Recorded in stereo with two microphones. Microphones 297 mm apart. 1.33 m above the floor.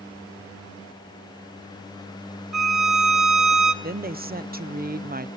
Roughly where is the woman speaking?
Right.